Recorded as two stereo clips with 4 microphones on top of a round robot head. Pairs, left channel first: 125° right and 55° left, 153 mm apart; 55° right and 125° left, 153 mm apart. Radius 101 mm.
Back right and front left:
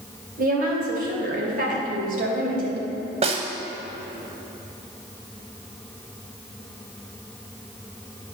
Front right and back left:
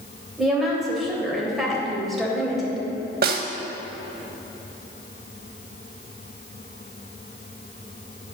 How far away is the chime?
I don't hear a chime.